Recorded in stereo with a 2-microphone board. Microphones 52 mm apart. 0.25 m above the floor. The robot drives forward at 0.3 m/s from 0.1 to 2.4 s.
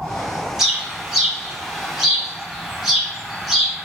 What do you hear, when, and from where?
0.6 s a bird: 5° right (ahead or behind), 1.0 m